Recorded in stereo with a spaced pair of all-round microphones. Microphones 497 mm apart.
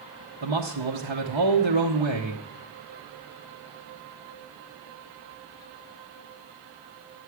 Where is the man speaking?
60° right (ahead or behind), 0.9 m.